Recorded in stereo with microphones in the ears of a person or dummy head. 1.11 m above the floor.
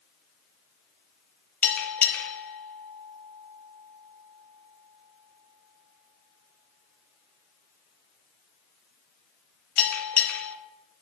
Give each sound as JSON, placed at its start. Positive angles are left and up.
{"t": 1.6, "sound": "a bell", "side_deg": 5, "distance_m": 0.6}